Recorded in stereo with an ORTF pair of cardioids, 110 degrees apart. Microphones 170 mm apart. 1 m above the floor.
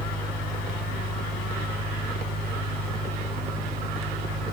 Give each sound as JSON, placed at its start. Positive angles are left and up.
{"t": 0.0, "sound": "a fan", "azimuth_deg": -70, "distance_m": 1.8}